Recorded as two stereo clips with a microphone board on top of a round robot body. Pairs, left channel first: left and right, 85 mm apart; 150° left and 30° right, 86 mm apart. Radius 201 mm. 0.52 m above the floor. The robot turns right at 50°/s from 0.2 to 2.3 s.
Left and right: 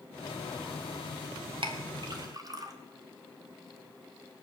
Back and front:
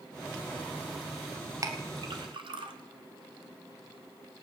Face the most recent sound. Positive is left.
turn(degrees=-45)